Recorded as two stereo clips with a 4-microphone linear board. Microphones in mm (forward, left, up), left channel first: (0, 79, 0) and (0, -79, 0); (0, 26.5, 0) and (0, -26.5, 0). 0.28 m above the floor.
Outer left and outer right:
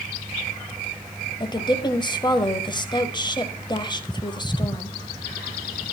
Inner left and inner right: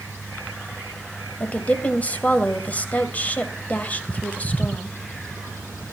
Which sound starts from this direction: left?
A woman speaking, at 1.4 s.